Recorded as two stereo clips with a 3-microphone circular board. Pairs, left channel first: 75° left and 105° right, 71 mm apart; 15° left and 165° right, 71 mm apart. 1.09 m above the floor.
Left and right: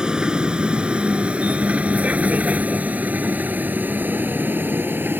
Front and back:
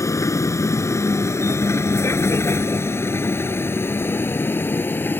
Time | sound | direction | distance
0.0 | a vehicle | 25° right | ?